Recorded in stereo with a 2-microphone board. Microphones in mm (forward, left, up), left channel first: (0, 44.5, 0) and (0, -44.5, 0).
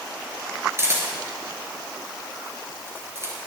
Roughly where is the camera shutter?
Right.